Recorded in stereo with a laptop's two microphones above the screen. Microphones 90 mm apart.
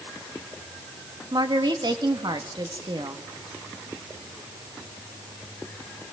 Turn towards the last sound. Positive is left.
turn(degrees=-60)  # may be behind; listen again after turning